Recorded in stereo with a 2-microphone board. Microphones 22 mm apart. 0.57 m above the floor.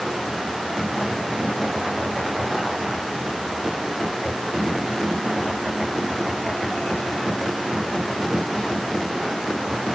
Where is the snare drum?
No snare drum in this recording.